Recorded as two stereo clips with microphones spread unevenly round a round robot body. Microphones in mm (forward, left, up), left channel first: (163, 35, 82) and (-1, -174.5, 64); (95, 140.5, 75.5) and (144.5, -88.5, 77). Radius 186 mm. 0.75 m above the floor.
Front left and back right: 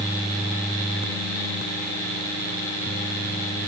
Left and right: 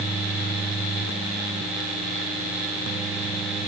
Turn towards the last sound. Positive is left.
No sound to turn to.